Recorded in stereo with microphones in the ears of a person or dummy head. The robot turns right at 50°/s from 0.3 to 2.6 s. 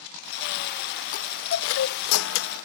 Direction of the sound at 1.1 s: 50° left.